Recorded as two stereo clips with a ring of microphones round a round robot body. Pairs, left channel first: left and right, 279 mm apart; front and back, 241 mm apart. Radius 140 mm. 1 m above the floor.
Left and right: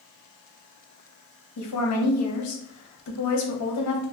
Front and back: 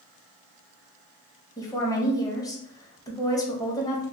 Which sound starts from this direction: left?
A woman speaking, at 1.6 s.